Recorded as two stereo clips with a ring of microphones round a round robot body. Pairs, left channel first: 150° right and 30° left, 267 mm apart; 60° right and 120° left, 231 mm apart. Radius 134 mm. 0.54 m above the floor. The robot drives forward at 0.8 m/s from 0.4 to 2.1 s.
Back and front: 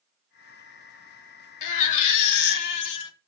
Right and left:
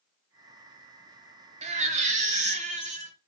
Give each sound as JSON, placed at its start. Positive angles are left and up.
{"t": 1.6, "sound": "a baby crying", "azimuth_deg": -170, "distance_m": 1.0}